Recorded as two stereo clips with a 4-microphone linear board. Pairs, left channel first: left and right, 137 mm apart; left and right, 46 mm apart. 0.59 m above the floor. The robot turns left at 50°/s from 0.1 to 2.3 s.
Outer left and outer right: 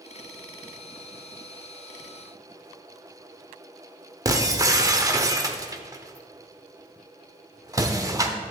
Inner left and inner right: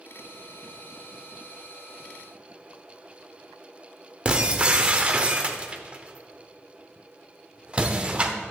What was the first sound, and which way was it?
Breaking glass, 25° right (ahead or behind).